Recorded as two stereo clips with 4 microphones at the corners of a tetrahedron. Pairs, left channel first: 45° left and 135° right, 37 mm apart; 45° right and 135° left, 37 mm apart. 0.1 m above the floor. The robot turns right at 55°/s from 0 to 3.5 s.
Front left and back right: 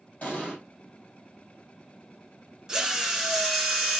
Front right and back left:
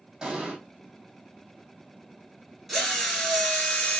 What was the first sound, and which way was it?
An explosion, 80° left.